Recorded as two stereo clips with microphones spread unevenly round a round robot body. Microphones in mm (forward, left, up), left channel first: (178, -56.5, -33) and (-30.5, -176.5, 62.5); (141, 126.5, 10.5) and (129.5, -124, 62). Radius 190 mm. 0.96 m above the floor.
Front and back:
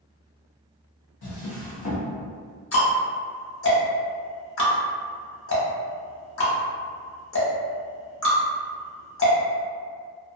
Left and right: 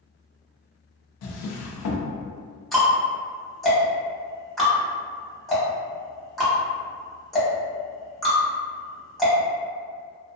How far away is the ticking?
About 1.0 m.